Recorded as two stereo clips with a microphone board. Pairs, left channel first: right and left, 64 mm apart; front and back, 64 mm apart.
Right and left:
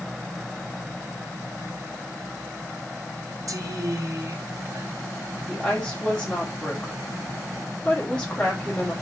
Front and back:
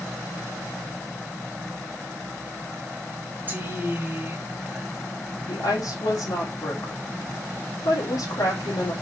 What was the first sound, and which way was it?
A woman speaking, 120° left.